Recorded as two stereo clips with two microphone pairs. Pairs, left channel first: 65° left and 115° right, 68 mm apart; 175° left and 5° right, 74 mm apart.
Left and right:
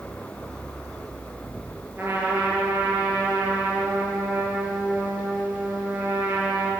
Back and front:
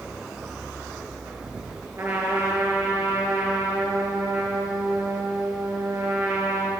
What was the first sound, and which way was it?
A trumpet, 50° right.